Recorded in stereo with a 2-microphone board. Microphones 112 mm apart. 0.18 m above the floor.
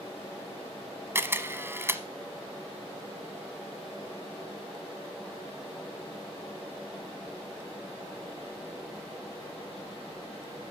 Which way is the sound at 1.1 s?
25° right (ahead or behind).